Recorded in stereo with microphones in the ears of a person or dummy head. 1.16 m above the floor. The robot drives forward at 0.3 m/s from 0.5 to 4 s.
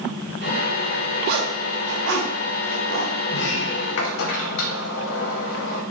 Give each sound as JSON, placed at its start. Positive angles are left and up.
{"t": 1.3, "sound": "a zipper", "side_deg": -55, "distance_m": 0.6}
{"t": 3.3, "sound": "a sliding door", "side_deg": 60, "distance_m": 0.7}